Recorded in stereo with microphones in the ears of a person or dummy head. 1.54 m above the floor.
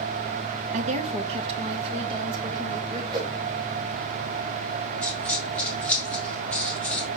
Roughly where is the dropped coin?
Centre.